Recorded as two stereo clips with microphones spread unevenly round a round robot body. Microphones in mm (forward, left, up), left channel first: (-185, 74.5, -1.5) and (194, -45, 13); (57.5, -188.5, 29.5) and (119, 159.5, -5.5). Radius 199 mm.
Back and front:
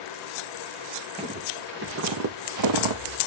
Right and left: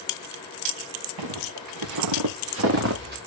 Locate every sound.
1.2 s footsteps: 55° left, 2.0 m; by 3.2 s 15° left, 2.0 m